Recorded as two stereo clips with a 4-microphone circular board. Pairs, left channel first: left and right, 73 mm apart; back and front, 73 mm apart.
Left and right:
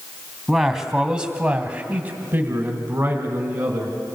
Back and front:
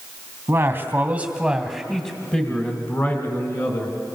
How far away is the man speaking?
About 1.5 m.